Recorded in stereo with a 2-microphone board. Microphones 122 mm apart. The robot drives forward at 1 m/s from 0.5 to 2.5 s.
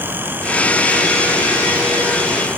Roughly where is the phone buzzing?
No phone buzzing in this recording.